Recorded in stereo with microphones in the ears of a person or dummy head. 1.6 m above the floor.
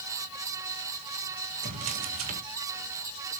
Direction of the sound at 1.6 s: 35° right (ahead or behind).